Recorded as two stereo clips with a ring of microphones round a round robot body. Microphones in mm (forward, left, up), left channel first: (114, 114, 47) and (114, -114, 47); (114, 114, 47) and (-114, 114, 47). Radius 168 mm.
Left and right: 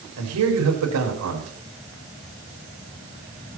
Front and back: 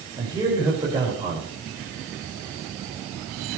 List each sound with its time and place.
0.2 s a man speaking: 105° right, 4 m